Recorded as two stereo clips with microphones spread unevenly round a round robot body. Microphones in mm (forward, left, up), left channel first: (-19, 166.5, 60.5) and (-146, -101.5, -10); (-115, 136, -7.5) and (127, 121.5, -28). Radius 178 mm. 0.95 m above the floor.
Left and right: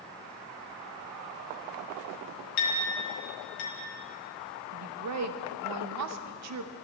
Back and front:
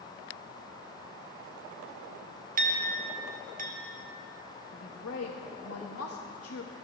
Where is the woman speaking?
135° right, 0.7 m.